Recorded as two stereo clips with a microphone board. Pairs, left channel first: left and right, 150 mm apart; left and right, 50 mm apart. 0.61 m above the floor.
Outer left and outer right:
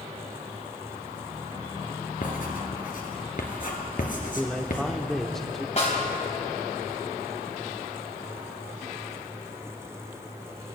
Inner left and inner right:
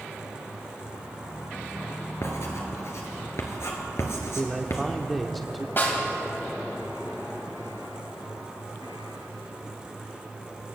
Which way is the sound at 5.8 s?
50° left (ahead or behind).